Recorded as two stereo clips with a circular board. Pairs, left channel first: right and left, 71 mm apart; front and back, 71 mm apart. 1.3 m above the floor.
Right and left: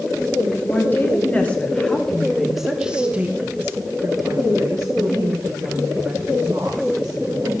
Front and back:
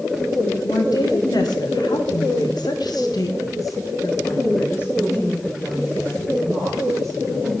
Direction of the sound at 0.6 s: 30° right.